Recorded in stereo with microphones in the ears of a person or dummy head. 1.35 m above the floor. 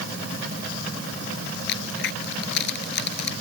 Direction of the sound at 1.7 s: 55° left (ahead or behind).